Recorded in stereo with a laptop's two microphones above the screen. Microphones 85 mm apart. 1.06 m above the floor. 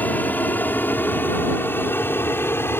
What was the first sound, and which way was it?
An aircraft, 20° left (ahead or behind).